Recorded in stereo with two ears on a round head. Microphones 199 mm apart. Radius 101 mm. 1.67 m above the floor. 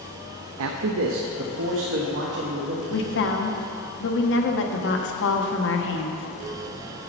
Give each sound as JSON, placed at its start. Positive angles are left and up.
{"t": 0.6, "sound": "a man speaking", "side_deg": -70, "distance_m": 0.6}
{"t": 2.9, "sound": "a woman speaking", "side_deg": 55, "distance_m": 1.0}